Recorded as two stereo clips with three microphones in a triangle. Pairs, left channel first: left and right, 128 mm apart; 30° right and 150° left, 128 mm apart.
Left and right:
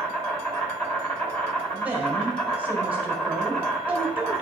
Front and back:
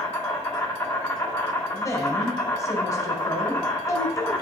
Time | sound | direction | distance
0.0 | an insect | 30° left | 2 m
1.7 | a woman speaking | 25° right | 1.7 m